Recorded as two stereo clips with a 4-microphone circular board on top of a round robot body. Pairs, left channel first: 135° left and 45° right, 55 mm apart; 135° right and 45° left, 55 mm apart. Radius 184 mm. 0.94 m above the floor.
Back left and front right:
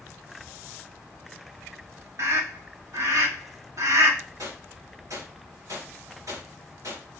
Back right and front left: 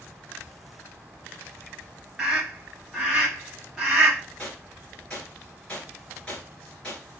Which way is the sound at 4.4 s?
65° right.